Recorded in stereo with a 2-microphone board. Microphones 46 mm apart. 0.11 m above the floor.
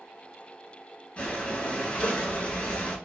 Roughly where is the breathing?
Left.